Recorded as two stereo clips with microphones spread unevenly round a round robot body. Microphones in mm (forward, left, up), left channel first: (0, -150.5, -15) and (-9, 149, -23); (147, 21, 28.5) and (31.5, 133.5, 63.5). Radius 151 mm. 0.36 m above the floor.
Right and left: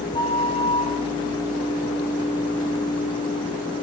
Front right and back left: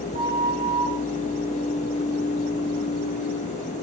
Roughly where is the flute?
Behind.